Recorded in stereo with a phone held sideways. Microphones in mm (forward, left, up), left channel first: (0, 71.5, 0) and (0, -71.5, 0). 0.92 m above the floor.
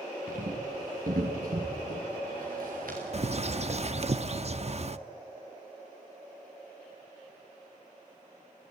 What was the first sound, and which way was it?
Footsteps, 75° right (ahead or behind).